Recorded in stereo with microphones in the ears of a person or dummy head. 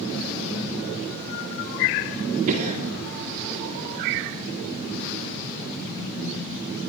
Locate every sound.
2.5 s a cough: 40° right (ahead or behind), 3.5 m